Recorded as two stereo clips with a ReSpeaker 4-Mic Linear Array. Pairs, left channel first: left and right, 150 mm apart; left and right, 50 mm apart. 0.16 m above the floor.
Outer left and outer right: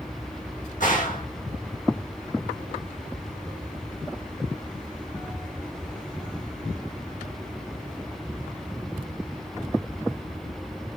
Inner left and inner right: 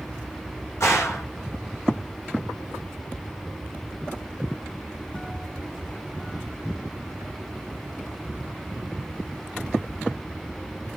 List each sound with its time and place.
0.8 s a gunshot: 60° left (ahead or behind), 6 m